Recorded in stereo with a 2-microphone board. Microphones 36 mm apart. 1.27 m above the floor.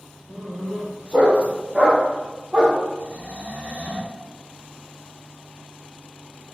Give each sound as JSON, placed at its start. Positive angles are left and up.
{"t": 0.3, "sound": "a dog barking", "side_deg": -20, "distance_m": 1.7}
{"t": 3.0, "sound": "snoring", "side_deg": -40, "distance_m": 1.0}